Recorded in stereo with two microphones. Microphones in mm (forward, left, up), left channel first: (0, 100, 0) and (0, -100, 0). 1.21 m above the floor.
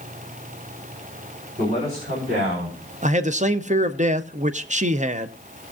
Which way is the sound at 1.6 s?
45° right (ahead or behind).